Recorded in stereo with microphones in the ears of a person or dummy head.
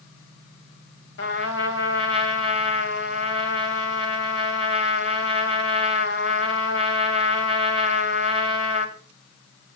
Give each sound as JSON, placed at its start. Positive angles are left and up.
{"t": 1.2, "sound": "a trumpet", "side_deg": 65, "distance_m": 2.5}